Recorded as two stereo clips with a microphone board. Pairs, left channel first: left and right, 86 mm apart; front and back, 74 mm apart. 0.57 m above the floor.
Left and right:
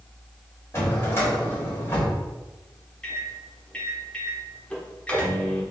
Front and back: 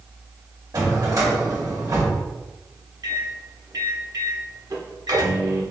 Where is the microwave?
165° left, 1.0 m.